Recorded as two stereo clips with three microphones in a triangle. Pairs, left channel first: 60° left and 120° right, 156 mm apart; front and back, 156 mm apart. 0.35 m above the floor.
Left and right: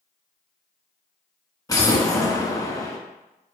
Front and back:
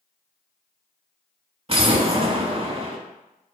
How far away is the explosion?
About 0.5 m.